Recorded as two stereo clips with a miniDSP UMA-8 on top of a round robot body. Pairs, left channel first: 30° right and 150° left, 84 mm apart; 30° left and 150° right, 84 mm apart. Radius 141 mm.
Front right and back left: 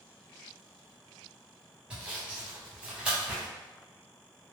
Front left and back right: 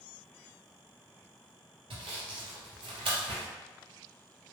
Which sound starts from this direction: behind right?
Sawing, at 1.9 s.